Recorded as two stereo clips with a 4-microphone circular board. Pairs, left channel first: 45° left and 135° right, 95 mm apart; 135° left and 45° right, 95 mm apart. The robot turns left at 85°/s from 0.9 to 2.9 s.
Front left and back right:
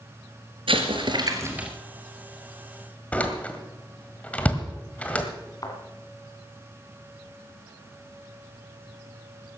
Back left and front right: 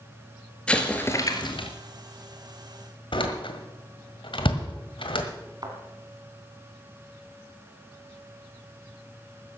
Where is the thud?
Straight ahead, 2.5 m.